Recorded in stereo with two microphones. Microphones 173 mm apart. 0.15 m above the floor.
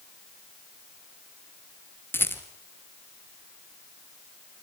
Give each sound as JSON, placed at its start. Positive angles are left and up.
{"t": 2.1, "sound": "a rattle", "side_deg": 10, "distance_m": 2.5}